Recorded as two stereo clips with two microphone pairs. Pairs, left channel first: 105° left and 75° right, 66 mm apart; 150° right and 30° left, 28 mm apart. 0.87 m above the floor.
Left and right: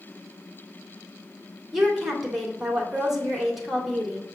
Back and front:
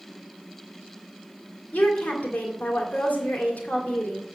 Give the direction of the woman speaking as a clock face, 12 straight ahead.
5 o'clock.